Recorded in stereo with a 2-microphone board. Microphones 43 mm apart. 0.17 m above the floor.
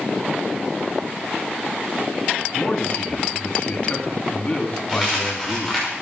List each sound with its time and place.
2.5 s a man speaking: 30° left (ahead or behind), 1.8 m
4.9 s a dropped coin: 10° right (ahead or behind), 5.5 m